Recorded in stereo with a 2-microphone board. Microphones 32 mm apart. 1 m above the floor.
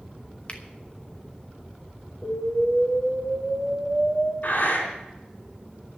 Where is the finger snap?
35° left (ahead or behind), 1.4 m.